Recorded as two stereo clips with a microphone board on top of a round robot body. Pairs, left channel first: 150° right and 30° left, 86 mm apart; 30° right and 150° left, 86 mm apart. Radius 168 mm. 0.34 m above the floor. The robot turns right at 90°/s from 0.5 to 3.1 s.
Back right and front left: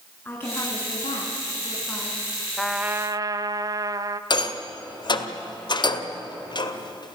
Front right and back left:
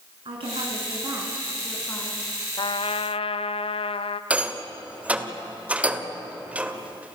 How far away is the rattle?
About 1.9 m.